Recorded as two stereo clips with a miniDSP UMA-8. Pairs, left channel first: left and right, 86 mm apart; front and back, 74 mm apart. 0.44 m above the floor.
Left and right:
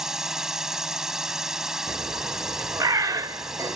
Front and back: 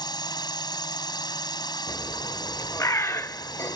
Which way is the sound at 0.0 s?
5° right.